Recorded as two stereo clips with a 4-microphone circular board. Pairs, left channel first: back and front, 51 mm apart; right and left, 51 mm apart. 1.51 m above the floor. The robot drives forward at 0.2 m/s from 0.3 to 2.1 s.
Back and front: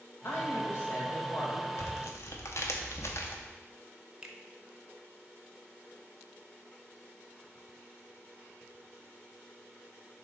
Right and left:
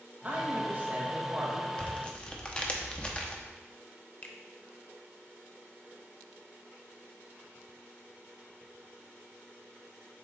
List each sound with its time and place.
0.2 s a woman speaking: 145° left, 1.7 m; by 1.7 s 150° left, 2.0 m
1.8 s tearing paper: 155° right, 0.7 m; by 3.4 s 160° right, 0.8 m
4.2 s a finger snap: 65° right, 0.7 m